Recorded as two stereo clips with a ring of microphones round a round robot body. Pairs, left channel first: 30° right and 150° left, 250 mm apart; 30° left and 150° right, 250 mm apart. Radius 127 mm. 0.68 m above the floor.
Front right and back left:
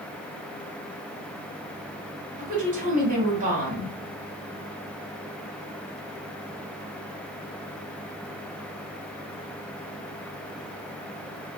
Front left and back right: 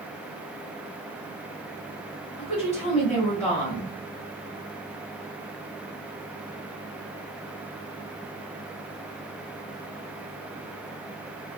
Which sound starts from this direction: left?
A woman speaking, at 2.4 s.